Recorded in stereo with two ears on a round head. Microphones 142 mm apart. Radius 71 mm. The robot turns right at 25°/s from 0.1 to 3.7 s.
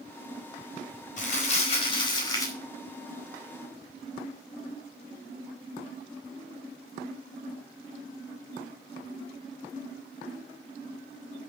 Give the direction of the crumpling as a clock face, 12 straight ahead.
8 o'clock.